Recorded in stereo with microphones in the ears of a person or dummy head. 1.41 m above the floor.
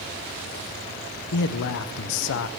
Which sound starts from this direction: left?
A man speaking, at 1.3 s.